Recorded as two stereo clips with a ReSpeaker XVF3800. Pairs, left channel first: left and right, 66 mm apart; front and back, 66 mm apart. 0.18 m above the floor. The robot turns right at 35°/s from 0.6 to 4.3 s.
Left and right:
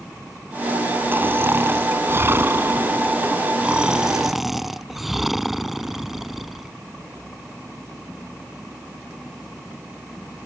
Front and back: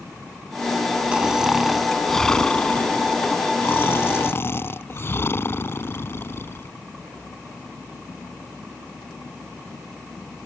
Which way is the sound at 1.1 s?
115° right.